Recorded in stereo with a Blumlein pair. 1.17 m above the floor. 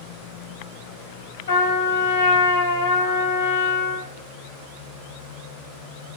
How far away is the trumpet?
About 1.1 m.